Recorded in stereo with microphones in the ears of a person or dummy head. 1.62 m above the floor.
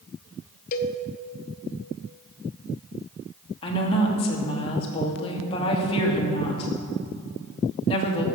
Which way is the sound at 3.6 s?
30° left (ahead or behind).